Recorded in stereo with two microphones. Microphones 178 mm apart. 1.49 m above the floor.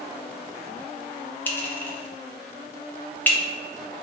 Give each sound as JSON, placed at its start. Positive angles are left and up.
{"t": 1.5, "sound": "a clink", "side_deg": 10, "distance_m": 0.7}